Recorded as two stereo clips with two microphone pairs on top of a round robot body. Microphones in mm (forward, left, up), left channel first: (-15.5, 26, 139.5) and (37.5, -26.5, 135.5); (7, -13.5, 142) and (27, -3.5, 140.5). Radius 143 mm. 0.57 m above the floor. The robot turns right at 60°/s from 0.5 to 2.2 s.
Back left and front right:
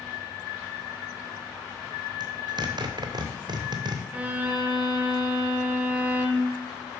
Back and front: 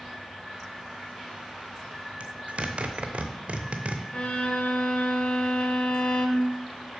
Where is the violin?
115° right, 0.7 m.